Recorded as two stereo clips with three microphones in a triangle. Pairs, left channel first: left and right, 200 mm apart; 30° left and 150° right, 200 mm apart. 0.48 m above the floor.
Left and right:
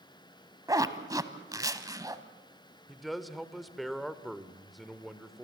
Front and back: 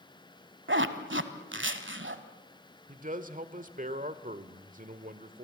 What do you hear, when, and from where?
0.7 s a zipper: 165° right, 1.3 m
2.9 s a man speaking: straight behind, 1.4 m